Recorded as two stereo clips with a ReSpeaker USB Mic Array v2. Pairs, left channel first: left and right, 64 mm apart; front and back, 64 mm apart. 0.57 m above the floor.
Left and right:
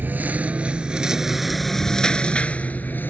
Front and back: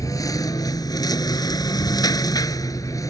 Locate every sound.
0.0 s a lawn mower: 30° right; by 3.1 s 35° left